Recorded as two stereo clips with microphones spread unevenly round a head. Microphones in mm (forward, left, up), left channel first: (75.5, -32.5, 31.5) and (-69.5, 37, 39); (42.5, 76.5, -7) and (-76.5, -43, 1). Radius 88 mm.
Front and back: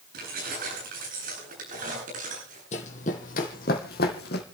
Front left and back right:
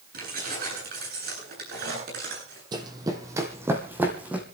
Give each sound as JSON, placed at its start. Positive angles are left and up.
{"t": 0.1, "sound": "keys jangling", "azimuth_deg": -170, "distance_m": 10.0}
{"t": 2.7, "sound": "running footsteps", "azimuth_deg": -75, "distance_m": 2.0}